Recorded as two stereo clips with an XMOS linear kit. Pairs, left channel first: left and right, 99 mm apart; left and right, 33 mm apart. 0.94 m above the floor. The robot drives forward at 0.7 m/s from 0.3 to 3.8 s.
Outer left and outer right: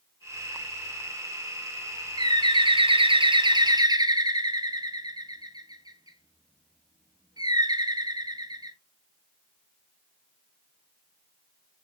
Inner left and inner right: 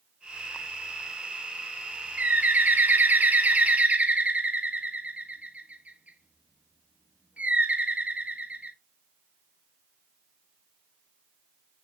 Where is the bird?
45° right (ahead or behind), 0.9 m.